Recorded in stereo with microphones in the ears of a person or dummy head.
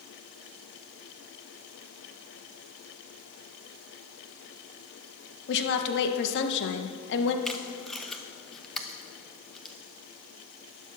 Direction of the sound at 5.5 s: 65° left (ahead or behind).